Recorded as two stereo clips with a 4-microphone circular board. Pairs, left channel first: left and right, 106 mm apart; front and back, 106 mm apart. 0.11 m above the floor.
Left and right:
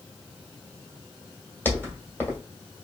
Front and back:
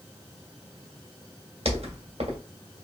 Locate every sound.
1.6 s footsteps: 160° left, 1.6 m